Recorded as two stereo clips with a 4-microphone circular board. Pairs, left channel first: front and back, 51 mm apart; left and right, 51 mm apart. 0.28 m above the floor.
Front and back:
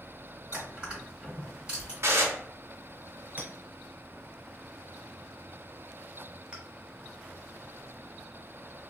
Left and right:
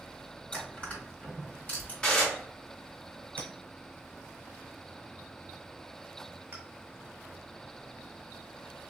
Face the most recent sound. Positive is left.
turn(degrees=-130)